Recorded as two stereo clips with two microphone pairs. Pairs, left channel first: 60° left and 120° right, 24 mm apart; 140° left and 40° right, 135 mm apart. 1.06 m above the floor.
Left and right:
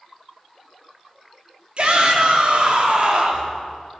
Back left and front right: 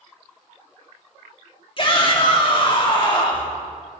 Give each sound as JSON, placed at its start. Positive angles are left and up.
{"t": 1.8, "sound": "a shout", "azimuth_deg": -170, "distance_m": 2.5}